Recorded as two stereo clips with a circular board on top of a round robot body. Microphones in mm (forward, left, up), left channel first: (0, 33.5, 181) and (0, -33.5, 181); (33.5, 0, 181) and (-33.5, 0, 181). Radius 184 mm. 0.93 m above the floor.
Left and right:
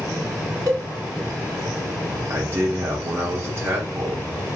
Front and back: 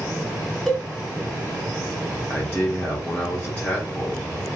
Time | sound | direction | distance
0.7 | a cowbell | 85° right | 1.6 m
2.3 | a man speaking | 65° right | 1.0 m